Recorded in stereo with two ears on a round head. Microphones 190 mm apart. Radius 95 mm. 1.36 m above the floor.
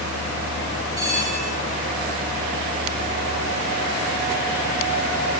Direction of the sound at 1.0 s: 20° right (ahead or behind).